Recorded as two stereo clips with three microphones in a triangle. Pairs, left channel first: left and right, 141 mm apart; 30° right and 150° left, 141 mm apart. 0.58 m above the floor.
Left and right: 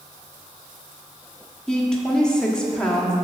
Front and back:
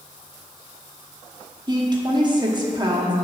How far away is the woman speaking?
About 1.0 m.